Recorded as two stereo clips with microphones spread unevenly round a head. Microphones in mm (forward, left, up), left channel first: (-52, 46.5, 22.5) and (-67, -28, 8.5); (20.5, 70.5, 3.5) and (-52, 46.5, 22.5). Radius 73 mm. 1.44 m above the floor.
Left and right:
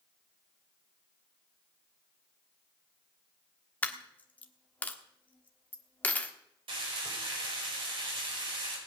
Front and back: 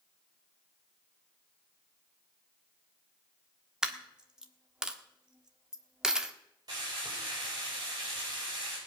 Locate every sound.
3.8 s a dropped coin: 130° left, 1.4 m
6.7 s frying: 95° right, 5 m